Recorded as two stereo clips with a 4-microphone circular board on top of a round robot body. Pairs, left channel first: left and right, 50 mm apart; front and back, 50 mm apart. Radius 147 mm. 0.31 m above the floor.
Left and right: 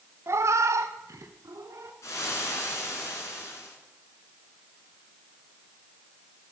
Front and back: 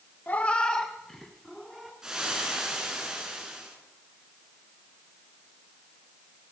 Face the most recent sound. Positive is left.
turn(degrees=100)